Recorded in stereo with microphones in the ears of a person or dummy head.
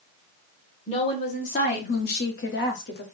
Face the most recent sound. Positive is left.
turn(degrees=75)  # may be behind; listen again after turning